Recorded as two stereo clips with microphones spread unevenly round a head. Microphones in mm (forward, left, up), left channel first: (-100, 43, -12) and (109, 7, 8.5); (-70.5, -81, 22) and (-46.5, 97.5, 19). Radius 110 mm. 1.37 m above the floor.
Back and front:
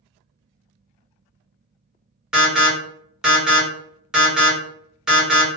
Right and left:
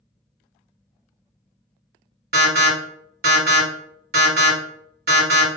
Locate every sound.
2.3 s an alarm: 80° left, 1.4 m